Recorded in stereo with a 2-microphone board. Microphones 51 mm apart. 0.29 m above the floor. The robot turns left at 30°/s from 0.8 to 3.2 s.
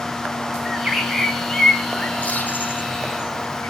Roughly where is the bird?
Centre.